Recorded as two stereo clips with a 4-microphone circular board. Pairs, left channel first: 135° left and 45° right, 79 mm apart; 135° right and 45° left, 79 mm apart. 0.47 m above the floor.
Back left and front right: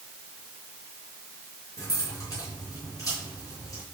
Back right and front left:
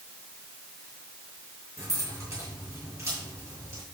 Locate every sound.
1.8 s keys jangling: 95° left, 6.5 m